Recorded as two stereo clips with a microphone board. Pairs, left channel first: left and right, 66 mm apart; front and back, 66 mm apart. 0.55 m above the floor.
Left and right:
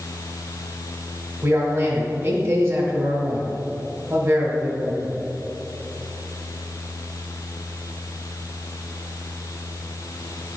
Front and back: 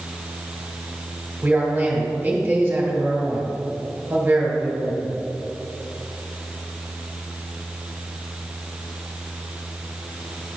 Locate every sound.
1.4 s a man speaking: 125° right, 1.6 m